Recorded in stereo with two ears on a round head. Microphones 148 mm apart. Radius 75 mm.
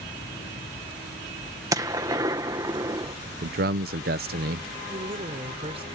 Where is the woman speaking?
35° right (ahead or behind).